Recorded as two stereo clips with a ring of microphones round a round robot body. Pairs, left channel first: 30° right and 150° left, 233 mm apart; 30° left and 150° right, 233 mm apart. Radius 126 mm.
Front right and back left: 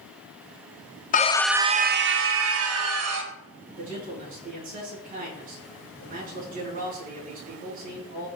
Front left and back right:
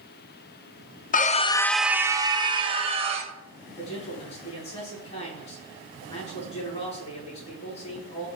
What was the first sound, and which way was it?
A scream, straight ahead.